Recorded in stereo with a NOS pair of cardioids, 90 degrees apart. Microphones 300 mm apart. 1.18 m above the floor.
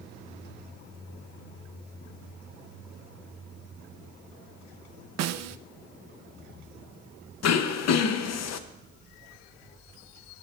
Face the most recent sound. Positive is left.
turn(degrees=60)